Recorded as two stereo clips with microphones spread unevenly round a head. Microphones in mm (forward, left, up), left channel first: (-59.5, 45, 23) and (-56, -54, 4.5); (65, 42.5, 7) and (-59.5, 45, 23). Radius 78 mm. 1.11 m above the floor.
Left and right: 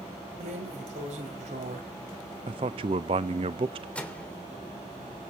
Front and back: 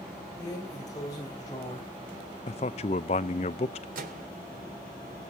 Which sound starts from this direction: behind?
A microwave, at 4.0 s.